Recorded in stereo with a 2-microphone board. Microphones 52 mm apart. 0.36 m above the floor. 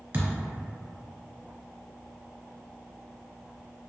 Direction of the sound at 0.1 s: 40° right (ahead or behind).